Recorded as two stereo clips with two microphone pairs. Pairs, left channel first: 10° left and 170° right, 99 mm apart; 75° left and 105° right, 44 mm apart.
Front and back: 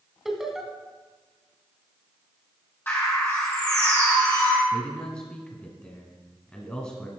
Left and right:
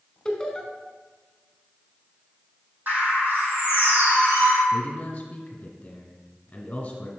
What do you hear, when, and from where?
0.2 s laughter: 115° left, 1.1 m
2.9 s a bird: 60° right, 2.5 m
4.7 s a man speaking: 70° left, 1.4 m